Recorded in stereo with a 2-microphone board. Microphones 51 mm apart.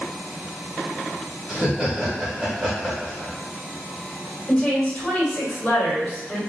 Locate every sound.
1.5 s laughter: 15° right (ahead or behind), 1.1 m
4.5 s a woman speaking: 20° left (ahead or behind), 1.5 m